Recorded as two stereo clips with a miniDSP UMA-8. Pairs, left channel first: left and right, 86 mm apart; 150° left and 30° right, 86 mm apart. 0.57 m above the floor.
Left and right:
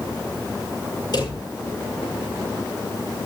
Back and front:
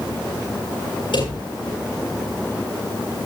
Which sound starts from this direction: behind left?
A drawer, at 1.1 s.